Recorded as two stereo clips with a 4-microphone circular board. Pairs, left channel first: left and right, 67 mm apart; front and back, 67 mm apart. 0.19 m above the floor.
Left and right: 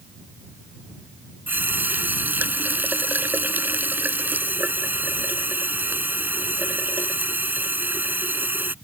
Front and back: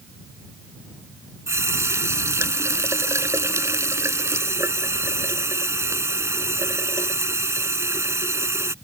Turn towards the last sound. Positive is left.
turn(degrees=-145)